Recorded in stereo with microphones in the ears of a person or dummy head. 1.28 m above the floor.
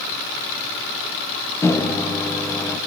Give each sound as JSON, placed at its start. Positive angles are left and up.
{"t": 1.6, "sound": "a microwave", "side_deg": 20, "distance_m": 0.6}